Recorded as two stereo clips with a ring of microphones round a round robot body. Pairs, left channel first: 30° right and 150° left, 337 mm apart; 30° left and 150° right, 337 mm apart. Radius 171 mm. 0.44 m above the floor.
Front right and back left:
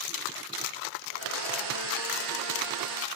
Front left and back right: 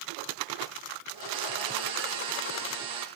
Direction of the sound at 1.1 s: 175° right.